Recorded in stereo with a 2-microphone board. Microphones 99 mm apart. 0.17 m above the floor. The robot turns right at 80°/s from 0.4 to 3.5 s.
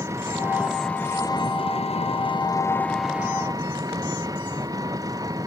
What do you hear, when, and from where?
0.0 s an engine running: 30° right; by 5.5 s 145° right